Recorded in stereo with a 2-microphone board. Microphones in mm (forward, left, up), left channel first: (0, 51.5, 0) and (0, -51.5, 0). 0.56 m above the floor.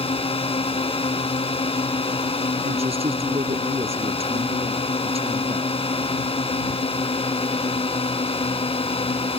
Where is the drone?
70° left (ahead or behind).